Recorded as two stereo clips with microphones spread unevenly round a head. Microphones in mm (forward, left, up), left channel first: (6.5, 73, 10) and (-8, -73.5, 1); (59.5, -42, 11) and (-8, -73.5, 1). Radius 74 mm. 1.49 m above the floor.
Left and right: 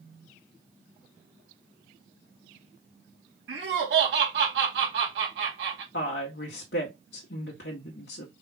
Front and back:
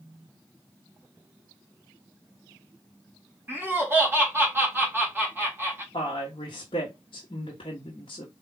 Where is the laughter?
95° right, 2.5 m.